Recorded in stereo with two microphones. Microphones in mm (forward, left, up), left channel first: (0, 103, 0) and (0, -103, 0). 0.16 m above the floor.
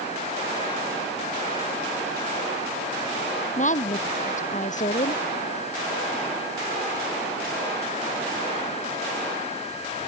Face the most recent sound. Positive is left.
turn(degrees=35)  # may be behind; listen again after turning